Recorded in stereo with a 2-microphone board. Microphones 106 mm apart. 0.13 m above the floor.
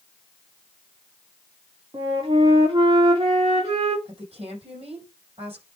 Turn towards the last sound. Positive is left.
turn(degrees=-60)  # may be behind; listen again after turning